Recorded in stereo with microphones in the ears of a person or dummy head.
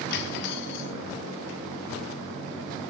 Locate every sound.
0.1 s cutlery clinking: 55° left (ahead or behind), 0.9 m